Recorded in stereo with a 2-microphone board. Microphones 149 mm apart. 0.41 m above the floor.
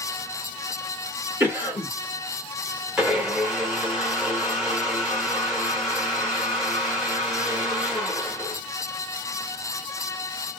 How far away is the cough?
About 1.1 m.